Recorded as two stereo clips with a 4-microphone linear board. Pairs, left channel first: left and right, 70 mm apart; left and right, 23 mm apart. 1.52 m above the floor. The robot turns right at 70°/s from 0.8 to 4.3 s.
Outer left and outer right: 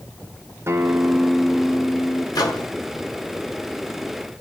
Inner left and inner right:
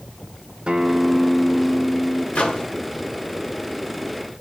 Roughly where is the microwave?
Left.